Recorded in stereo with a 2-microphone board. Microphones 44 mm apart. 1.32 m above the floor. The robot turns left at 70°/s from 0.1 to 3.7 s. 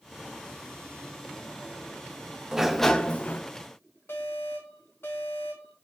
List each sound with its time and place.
2.5 s a sliding door: 165° right, 0.7 m; by 3.4 s 135° left, 0.7 m
4.1 s an alarm: 65° left (ahead or behind), 2.5 m